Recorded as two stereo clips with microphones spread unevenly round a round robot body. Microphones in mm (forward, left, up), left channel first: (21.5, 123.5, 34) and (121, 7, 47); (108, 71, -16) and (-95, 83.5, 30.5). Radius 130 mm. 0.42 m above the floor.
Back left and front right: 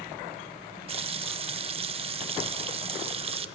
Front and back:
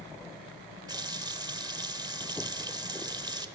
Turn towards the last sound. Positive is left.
turn(degrees=-105)